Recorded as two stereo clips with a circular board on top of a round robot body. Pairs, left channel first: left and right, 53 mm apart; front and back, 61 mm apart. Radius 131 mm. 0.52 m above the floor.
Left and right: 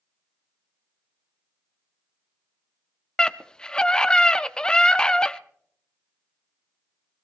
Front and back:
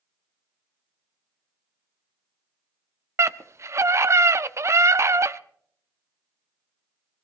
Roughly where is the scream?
Behind.